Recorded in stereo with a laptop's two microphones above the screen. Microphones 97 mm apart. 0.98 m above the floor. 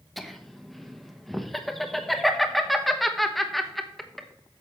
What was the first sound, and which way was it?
Laughter, centre (ahead or behind).